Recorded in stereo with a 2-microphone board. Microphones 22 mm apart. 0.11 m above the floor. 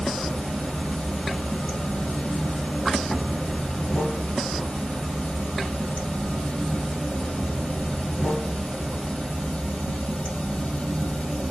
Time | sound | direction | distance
0.0 | running water | 65° left (ahead or behind) | 1.7 m